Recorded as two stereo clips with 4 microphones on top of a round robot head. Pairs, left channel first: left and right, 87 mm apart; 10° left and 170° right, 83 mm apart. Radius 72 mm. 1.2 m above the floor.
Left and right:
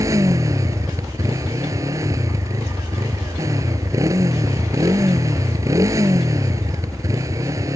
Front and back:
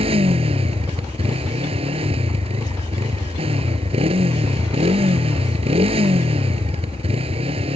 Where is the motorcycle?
155° right.